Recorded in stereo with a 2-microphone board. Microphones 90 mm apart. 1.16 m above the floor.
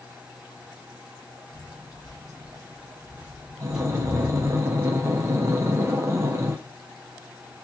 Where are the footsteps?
50° right (ahead or behind), 1.9 m; by 4.6 s 20° left (ahead or behind), 1.2 m.